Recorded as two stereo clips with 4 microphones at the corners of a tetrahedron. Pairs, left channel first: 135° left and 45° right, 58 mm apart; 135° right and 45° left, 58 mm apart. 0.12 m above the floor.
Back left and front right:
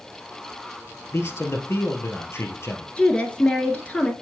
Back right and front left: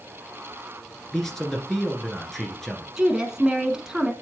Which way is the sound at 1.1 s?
140° left.